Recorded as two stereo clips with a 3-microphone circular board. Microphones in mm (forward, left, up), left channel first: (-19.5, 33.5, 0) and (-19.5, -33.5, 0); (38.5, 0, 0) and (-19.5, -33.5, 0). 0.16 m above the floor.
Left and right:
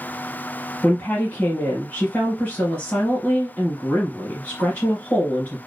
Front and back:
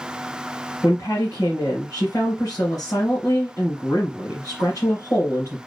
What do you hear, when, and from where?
0.8 s a woman speaking: 40° left, 2.5 m